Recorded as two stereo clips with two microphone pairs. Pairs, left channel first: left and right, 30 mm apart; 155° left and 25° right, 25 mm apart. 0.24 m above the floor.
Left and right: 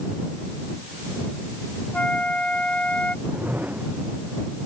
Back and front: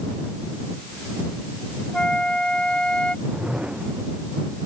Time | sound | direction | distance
1.9 | a flute | 120° left | ?
3.2 | a whoosh | 75° right | ?